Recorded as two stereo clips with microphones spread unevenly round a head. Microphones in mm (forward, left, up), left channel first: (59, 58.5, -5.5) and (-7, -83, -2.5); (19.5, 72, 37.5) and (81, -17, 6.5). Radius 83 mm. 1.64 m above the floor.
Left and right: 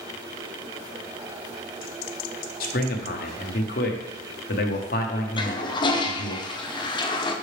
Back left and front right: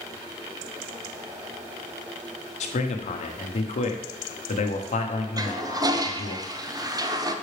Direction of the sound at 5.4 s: Straight ahead.